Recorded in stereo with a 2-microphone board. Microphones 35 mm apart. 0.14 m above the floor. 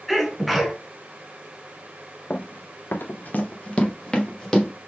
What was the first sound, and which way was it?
A sneeze, centre (ahead or behind).